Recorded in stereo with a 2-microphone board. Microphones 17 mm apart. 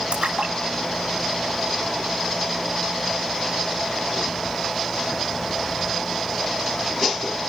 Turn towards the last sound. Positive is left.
turn(degrees=-85)